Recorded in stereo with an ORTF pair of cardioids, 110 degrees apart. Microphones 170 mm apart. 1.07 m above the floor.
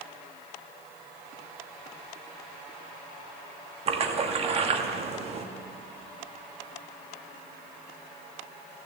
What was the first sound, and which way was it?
A splash, 35° right.